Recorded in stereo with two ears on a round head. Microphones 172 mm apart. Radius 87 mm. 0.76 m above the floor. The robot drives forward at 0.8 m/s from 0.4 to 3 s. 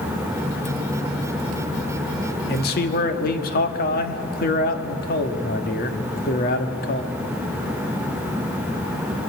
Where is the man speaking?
55° left (ahead or behind), 1.5 m; by 7.2 s 50° left (ahead or behind), 1.6 m.